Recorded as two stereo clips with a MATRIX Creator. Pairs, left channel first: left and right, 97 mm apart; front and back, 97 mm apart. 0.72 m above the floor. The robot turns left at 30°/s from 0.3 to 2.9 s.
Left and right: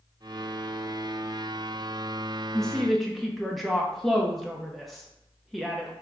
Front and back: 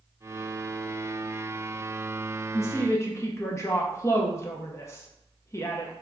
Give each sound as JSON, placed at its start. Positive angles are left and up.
{"t": 2.5, "sound": "a woman speaking", "azimuth_deg": 10, "distance_m": 0.5}